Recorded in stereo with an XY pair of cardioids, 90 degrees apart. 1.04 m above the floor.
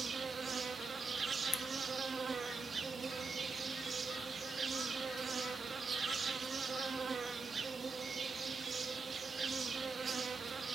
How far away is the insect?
About 0.8 m.